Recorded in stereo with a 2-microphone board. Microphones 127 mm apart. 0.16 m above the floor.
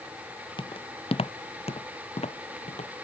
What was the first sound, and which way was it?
Footsteps, 45° left (ahead or behind).